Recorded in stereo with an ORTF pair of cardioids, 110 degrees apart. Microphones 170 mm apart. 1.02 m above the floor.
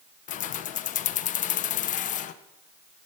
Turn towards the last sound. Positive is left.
turn(degrees=50)